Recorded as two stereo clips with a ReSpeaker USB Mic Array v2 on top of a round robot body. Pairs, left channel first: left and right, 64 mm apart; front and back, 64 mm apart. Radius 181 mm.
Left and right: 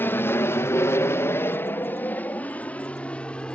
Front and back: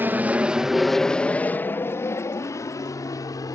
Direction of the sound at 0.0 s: 130° left.